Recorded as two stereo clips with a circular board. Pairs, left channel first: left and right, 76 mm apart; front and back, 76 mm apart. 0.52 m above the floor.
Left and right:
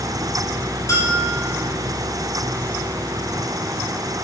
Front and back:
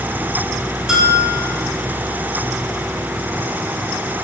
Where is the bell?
100° left, 1.2 m.